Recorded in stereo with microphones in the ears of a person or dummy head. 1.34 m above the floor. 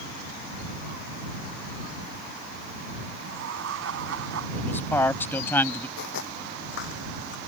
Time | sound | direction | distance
3.2 | laughter | 80° right | ?
4.6 | a man speaking | 10° left (ahead or behind) | ?
6.0 | footsteps | 60° left (ahead or behind) | ?